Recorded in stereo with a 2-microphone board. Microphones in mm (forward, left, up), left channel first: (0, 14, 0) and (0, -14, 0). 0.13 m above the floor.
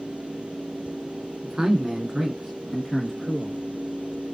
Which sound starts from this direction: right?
A man speaking, at 1.4 s.